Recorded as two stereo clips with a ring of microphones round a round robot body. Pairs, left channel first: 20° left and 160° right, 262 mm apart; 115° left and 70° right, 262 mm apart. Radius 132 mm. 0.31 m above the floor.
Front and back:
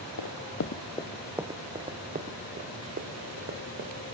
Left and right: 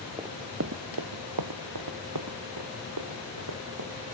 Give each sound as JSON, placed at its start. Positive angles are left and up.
{"t": 0.2, "sound": "running footsteps", "azimuth_deg": 10, "distance_m": 0.8}